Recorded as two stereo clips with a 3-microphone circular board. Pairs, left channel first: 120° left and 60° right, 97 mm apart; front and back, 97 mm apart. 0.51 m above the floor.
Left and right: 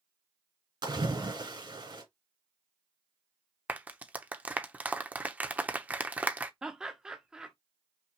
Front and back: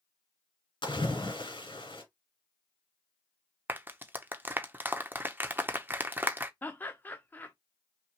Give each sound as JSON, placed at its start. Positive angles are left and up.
{"t": 0.8, "sound": "a splash", "azimuth_deg": -25, "distance_m": 1.8}
{"t": 3.7, "sound": "a clap", "azimuth_deg": -125, "distance_m": 0.6}
{"t": 6.6, "sound": "laughter", "azimuth_deg": 5, "distance_m": 0.7}